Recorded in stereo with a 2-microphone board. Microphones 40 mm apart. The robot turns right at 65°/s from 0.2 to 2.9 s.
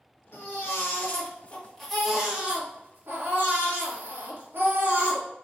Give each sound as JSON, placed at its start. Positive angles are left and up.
{"t": 0.3, "sound": "a baby crying", "azimuth_deg": 75, "distance_m": 1.7}